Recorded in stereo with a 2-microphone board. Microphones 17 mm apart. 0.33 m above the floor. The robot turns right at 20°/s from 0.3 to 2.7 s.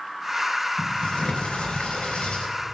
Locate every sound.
0.8 s a sliding door: 90° left, 4.5 m; by 2.5 s 120° left, 4.5 m